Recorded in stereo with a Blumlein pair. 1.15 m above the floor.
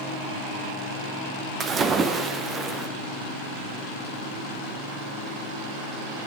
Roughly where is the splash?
Ahead.